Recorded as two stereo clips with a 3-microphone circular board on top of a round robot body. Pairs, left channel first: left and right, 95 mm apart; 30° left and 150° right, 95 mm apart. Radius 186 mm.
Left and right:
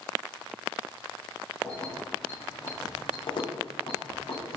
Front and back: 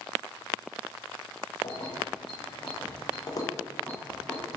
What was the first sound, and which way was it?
Keys jangling, 5° left.